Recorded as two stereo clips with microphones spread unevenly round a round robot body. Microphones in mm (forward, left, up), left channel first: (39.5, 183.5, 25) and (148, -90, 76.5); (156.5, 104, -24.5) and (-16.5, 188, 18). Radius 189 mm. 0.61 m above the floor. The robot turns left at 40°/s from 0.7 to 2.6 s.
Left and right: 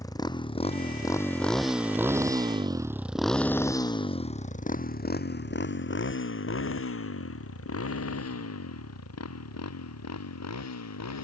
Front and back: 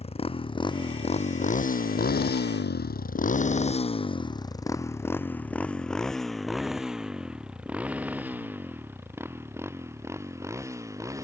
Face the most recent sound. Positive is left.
turn(degrees=80)